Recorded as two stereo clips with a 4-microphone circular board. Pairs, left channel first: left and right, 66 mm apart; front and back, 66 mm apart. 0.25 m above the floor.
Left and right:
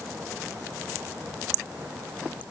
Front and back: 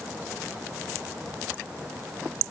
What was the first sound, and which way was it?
Only background noise.